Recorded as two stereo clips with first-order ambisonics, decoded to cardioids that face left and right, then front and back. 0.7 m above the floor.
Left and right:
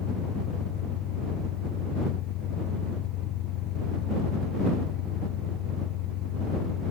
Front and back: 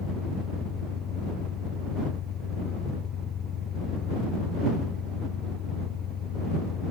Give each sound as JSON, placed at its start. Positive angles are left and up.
{"t": 0.0, "sound": "an engine running", "azimuth_deg": 60}